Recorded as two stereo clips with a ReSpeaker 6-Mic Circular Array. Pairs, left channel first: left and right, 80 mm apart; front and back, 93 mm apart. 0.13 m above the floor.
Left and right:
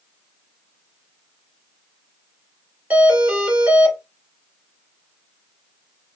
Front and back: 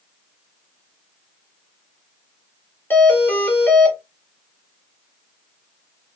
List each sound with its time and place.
2.9 s a doorbell: 45° right, 1.7 m